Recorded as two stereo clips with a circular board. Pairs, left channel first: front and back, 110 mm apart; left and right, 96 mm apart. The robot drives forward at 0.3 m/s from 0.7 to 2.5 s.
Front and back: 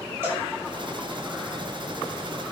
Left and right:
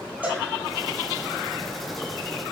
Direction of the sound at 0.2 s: 145° right.